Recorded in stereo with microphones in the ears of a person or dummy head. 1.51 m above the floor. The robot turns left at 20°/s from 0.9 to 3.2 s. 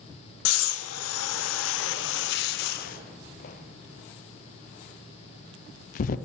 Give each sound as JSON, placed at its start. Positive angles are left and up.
{"t": 0.5, "sound": "breathing", "side_deg": 85, "distance_m": 0.5}